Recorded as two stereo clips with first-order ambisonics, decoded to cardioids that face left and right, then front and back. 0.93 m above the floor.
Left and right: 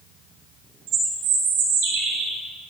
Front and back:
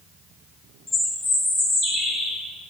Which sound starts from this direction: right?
A bird, at 0.9 s.